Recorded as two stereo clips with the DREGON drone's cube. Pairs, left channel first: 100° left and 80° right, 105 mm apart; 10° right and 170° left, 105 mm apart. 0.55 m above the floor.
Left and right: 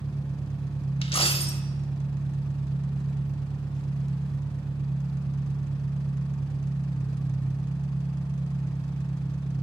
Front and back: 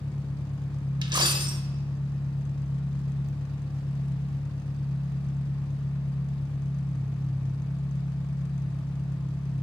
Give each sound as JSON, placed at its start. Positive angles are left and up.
{"t": 0.0, "sound": "an engine running", "azimuth_deg": 15, "distance_m": 1.1}
{"t": 1.0, "sound": "a dropped coin", "azimuth_deg": 125, "distance_m": 0.7}